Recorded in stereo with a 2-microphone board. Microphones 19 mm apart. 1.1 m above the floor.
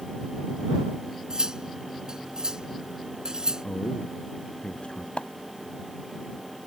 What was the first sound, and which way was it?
Cutlery clinking, 35° right (ahead or behind).